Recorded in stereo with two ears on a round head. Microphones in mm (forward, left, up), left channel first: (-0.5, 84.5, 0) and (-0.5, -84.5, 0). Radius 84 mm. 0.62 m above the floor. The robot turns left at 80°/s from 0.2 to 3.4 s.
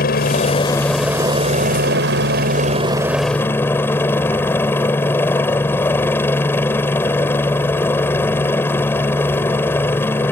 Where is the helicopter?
65° left; by 10.3 s 165° left.